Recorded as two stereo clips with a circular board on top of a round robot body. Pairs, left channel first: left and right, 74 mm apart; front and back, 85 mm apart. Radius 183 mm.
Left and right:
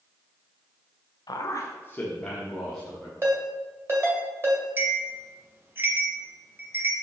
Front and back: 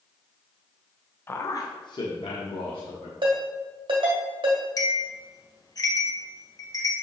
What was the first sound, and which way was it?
A man speaking, 65° left.